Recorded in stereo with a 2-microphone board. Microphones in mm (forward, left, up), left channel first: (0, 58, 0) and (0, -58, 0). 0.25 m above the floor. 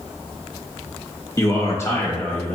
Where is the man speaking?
25° left (ahead or behind), 1.0 m; by 2.6 s 15° left (ahead or behind), 1.1 m.